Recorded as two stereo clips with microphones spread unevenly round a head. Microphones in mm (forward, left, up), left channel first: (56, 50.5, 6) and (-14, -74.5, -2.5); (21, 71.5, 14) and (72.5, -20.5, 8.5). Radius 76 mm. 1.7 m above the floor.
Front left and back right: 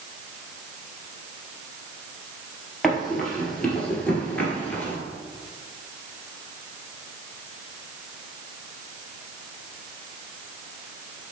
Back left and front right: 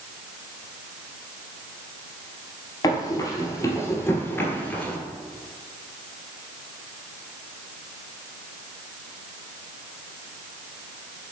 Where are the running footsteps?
145° left, 2 m; by 5.0 s 80° left, 1.7 m.